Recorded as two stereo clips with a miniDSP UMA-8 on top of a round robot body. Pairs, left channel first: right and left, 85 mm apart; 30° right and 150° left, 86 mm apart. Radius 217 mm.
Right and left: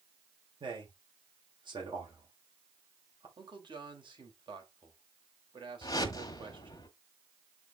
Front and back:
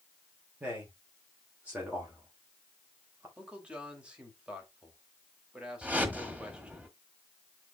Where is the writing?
No writing in this recording.